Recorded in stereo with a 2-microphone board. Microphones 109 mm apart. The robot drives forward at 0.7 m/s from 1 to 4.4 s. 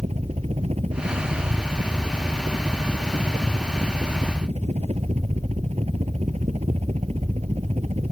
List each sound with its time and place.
0.0 s a helicopter: 80° right